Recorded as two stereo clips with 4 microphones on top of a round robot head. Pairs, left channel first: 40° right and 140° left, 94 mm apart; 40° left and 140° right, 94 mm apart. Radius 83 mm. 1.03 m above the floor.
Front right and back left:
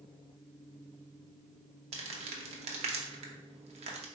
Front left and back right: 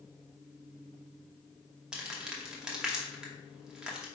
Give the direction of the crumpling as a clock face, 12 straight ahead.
7 o'clock.